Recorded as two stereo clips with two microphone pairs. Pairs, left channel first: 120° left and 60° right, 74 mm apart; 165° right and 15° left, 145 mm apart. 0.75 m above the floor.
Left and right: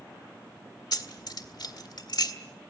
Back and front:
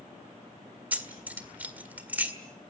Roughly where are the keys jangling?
Left.